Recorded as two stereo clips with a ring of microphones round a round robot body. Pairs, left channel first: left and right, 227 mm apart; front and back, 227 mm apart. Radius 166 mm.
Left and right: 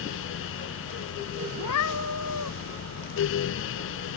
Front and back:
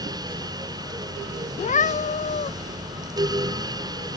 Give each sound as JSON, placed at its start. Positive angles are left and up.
{"t": 1.6, "sound": "a cat meowing", "azimuth_deg": 55}